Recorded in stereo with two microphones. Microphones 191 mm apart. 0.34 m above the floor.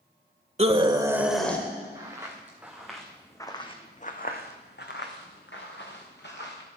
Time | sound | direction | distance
0.6 | a scream | 35° right (ahead or behind) | 1.5 m
1.9 | footsteps | 20° right (ahead or behind) | 2.5 m